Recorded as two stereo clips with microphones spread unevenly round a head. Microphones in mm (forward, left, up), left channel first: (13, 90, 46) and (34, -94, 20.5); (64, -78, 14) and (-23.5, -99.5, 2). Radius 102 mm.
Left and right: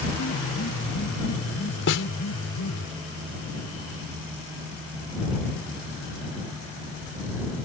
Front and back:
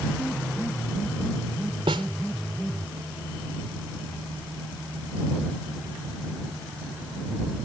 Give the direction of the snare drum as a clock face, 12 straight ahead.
8 o'clock.